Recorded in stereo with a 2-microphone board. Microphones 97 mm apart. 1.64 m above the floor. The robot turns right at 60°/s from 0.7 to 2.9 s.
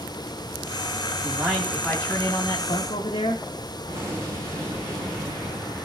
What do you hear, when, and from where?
1.2 s a man speaking: 30° right, 2.5 m; by 3.4 s 70° left, 2.5 m
3.9 s an explosion: 30° right (ahead or behind), 8 m